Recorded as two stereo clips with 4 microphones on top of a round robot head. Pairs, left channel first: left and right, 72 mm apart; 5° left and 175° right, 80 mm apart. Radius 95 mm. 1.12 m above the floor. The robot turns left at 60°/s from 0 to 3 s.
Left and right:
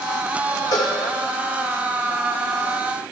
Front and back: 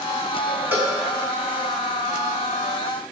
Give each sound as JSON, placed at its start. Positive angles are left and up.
{"t": 0.7, "sound": "a cowbell", "azimuth_deg": 125, "distance_m": 1.1}